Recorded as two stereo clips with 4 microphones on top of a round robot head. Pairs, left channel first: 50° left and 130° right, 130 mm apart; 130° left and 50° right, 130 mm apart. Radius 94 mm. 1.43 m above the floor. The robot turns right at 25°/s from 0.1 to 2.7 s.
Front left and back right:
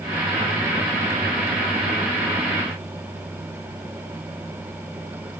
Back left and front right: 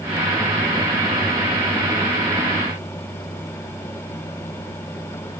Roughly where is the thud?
I don't hear a thud.